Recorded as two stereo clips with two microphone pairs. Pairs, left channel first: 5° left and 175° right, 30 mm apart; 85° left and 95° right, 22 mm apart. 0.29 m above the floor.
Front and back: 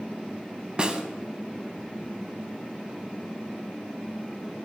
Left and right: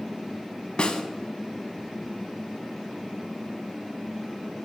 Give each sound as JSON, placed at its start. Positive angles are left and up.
{"t": 0.8, "sound": "a snare drum", "azimuth_deg": 125, "distance_m": 0.5}